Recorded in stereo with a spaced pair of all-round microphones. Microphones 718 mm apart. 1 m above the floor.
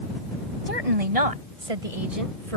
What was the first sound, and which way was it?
A woman speaking, 55° right (ahead or behind).